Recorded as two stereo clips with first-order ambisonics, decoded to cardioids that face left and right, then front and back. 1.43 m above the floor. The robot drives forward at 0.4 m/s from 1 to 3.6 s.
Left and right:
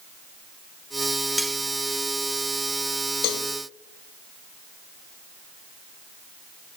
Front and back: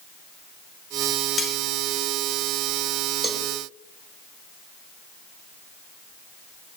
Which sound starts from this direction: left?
A cowbell, at 3.2 s.